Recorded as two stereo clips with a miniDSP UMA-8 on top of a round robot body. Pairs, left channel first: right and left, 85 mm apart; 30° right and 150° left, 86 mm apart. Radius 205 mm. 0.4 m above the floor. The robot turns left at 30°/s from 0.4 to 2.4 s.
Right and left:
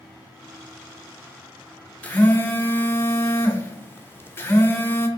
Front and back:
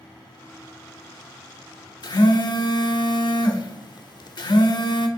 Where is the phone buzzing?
20° right, 0.7 m; by 5.1 s 30° right, 0.7 m.